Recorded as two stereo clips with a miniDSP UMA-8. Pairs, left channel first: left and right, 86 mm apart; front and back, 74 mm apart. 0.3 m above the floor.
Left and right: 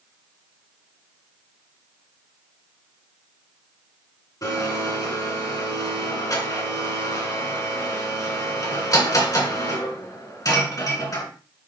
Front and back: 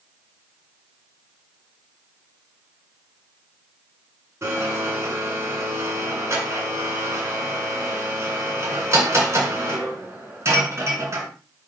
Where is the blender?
130° left, 2.5 m.